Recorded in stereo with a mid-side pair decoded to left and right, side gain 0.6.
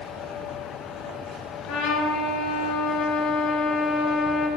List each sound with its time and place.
1.7 s a trumpet: 65° left, 4 m